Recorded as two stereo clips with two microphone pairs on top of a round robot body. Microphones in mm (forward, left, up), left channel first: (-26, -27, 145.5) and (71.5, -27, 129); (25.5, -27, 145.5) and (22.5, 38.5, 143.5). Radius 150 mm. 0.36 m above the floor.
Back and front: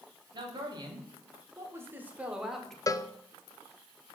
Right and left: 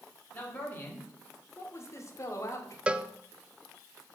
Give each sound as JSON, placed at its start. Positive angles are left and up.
{"t": 0.3, "sound": "a man speaking", "azimuth_deg": -30, "distance_m": 2.5}
{"t": 2.9, "sound": "a cowbell", "azimuth_deg": 145, "distance_m": 0.6}